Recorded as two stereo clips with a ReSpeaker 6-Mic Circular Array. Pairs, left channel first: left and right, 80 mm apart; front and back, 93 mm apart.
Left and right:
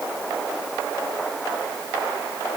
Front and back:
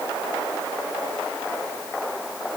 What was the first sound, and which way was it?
Only background noise.